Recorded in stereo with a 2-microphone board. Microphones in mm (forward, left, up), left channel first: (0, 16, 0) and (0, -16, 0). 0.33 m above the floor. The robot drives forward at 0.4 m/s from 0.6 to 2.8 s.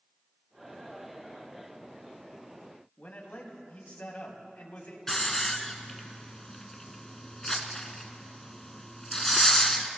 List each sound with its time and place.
3.0 s a man speaking: 55° left (ahead or behind), 2.5 m
5.1 s a hiss: 15° left (ahead or behind), 1.1 m